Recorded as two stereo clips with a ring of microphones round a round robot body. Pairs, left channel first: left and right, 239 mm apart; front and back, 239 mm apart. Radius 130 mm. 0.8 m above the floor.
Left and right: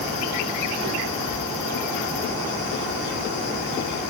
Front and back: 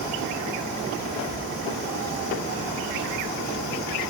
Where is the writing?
No writing in this recording.